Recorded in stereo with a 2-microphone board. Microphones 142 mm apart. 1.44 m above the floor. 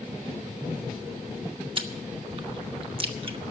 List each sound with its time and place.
1.8 s chewing: 35° right (ahead or behind), 0.9 m